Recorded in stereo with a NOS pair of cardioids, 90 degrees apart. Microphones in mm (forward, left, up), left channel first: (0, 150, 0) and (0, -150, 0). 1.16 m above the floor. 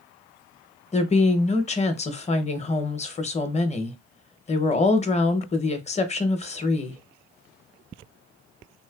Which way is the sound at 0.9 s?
20° left.